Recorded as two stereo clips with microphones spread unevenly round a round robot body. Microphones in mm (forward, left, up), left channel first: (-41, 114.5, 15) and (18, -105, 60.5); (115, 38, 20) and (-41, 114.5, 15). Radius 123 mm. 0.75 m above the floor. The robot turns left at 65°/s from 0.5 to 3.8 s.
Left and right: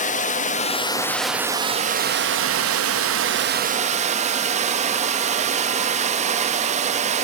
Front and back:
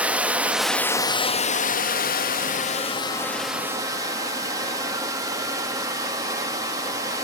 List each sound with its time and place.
0.0 s running water: 75° left, 1.0 m; by 7.2 s 140° right, 1.0 m